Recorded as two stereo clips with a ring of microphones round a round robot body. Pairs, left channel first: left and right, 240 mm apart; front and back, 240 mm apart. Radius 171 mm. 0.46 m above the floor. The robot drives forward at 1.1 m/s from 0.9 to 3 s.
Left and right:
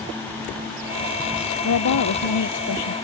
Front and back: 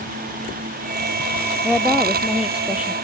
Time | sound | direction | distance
1.6 | a woman speaking | 90° left | ?